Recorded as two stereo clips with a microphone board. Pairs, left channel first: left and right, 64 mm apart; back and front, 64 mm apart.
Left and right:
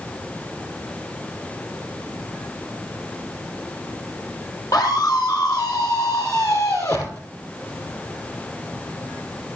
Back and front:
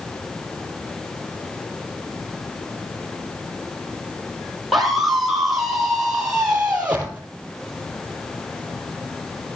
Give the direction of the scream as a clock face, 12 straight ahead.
9 o'clock.